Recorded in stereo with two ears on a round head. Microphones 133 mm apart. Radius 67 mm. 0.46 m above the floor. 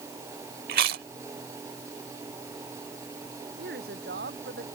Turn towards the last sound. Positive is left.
turn(degrees=-85)